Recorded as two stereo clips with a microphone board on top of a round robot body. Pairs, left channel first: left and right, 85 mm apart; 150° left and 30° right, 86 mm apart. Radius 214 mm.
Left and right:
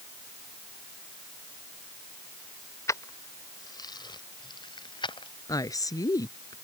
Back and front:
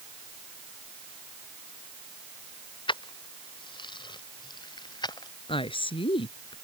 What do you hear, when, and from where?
2.9 s keys jangling: 145° left; by 5.3 s 115° left
5.5 s a woman speaking: 140° left